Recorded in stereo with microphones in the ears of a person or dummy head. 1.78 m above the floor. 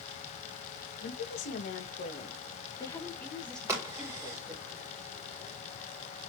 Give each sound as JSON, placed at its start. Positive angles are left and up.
{"t": 1.0, "sound": "a woman speaking", "side_deg": 65, "distance_m": 1.8}
{"t": 3.7, "sound": "a crack", "side_deg": -25, "distance_m": 2.5}